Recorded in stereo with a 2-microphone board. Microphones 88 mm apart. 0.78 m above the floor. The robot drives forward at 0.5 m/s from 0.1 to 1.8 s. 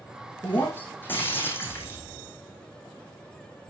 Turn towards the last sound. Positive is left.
turn(degrees=25)  # may be behind; listen again after turning